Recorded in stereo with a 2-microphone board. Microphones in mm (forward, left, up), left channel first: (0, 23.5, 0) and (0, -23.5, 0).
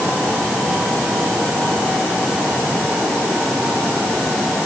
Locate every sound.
Only background noise.